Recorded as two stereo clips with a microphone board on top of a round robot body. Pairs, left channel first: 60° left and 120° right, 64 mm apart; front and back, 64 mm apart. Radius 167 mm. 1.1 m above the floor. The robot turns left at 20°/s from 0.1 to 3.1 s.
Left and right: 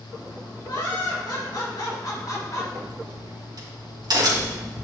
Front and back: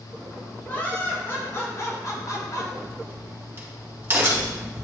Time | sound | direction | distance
0.7 | laughter | 65° left | 3 m
2.7 | a crack | 115° right | 3 m